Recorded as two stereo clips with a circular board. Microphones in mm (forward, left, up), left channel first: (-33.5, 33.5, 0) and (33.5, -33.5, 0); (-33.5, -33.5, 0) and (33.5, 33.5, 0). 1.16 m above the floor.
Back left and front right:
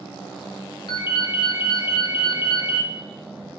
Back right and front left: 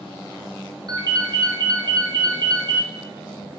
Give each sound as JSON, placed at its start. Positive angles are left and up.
{"t": 0.9, "sound": "a ringtone", "azimuth_deg": 95, "distance_m": 0.6}